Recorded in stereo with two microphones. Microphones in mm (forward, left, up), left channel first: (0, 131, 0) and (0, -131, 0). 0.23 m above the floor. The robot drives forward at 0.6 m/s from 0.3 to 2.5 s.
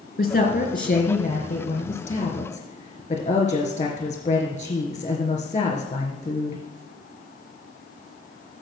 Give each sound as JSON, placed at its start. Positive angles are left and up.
{"t": 0.2, "sound": "a woman speaking", "side_deg": 35, "distance_m": 3.0}